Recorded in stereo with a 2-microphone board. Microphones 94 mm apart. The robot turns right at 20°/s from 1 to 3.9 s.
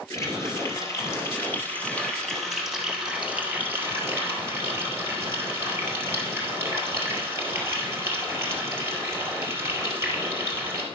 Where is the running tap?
150° left, 2 m; by 10.8 s 150° right, 2 m.